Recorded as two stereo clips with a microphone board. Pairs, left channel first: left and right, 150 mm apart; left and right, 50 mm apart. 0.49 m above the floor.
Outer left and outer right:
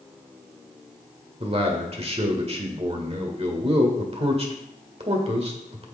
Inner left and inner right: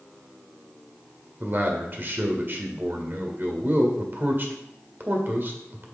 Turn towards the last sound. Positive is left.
turn(degrees=-40)  # may be behind; listen again after turning